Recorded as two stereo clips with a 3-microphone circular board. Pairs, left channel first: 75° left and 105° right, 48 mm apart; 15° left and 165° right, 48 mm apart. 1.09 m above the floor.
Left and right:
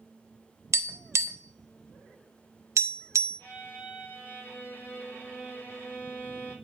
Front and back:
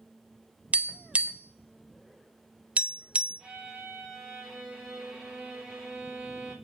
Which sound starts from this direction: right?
Tapping, at 0.7 s.